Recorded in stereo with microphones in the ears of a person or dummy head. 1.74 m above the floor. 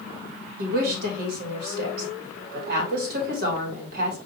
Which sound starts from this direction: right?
A woman speaking, at 0.6 s.